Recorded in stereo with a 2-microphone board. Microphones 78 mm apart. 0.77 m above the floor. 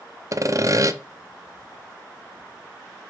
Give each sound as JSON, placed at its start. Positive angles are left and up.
{"t": 0.3, "sound": "sawing", "side_deg": -45, "distance_m": 0.6}